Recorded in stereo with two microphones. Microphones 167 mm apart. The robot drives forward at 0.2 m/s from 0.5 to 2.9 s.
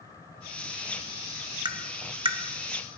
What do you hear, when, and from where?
1.6 s tapping: 25° right (ahead or behind), 0.7 m; by 2.4 s 35° right (ahead or behind), 0.5 m